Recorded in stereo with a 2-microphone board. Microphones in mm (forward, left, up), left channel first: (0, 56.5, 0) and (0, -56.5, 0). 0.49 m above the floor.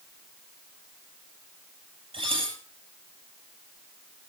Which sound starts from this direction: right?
Dishes clattering, at 2.1 s.